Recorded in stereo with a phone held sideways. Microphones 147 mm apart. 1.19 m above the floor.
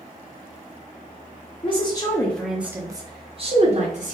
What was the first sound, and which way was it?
A woman speaking, 40° left (ahead or behind).